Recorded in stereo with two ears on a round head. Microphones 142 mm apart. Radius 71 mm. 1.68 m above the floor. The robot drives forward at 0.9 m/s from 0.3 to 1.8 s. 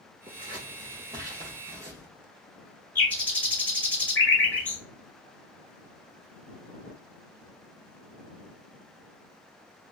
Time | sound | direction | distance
0.3 | scissors | 30° right (ahead or behind) | 2.5 m
3.0 | a bird | 10° left (ahead or behind) | 1.8 m